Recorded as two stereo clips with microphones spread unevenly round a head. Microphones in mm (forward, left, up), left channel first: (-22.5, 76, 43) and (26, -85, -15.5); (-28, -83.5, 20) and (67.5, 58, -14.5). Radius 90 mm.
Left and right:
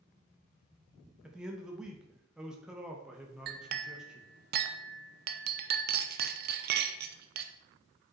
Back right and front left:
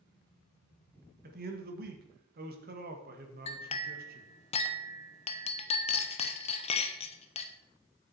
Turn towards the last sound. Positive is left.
turn(degrees=-110)